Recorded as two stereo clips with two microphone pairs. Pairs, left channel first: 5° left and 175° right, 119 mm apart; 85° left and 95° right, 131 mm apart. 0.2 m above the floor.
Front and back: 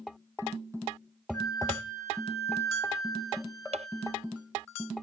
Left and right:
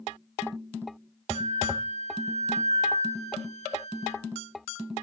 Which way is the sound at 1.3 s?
65° left.